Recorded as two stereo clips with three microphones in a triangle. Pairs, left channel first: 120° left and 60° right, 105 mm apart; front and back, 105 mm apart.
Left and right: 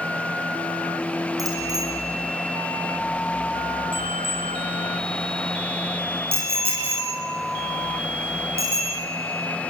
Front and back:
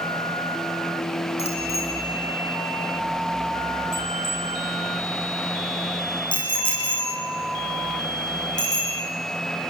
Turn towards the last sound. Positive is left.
turn(degrees=-50)